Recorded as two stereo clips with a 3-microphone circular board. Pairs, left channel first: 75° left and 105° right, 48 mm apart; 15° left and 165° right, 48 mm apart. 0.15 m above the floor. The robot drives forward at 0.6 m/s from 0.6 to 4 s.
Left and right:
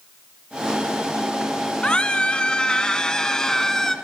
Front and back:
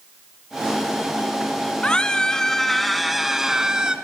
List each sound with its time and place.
1.8 s a scream: 45° left, 1.8 m; by 4.0 s 145° left, 1.9 m